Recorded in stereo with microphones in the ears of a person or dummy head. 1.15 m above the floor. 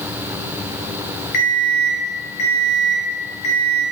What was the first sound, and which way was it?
An alarm clock, 65° left (ahead or behind).